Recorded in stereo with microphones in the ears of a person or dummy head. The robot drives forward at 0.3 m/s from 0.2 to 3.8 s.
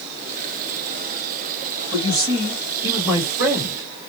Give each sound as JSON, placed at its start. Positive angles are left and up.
{"t": 1.9, "sound": "a man speaking", "side_deg": -20, "distance_m": 1.1}